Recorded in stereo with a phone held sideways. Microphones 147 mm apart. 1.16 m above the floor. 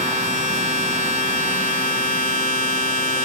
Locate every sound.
0.0 s a machine running: 70° right (ahead or behind), 2.5 m